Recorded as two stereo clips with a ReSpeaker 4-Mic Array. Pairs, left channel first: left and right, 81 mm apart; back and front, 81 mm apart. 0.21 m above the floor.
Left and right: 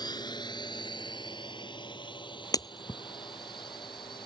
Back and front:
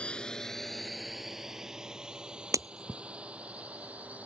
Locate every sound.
0.0 s a drone: 105° left; by 4.3 s 75° left
2.5 s breaking glass: 50° left